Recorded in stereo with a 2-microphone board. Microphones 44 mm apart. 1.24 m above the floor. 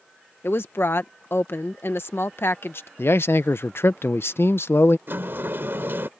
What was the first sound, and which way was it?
A woman speaking, 60° left (ahead or behind).